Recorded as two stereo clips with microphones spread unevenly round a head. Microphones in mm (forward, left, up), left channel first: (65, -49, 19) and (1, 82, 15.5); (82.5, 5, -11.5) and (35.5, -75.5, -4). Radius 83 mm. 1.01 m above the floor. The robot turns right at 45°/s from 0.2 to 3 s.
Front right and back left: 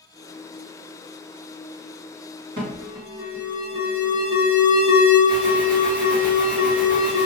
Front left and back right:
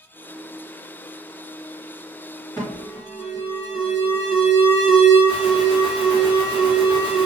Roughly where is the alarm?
Behind left.